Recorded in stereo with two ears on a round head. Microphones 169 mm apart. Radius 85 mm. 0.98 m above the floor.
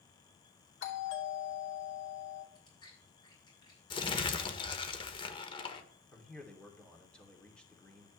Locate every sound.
0.8 s a doorbell: 70° left (ahead or behind), 3 m
2.5 s chewing: 25° left (ahead or behind), 6 m
3.9 s crumpling: 25° left (ahead or behind), 1.3 m
6.1 s a man speaking: 5° left (ahead or behind), 2.5 m